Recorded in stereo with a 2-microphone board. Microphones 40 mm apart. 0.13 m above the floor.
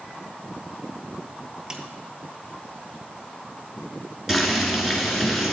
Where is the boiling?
5° right (ahead or behind), 1.7 m.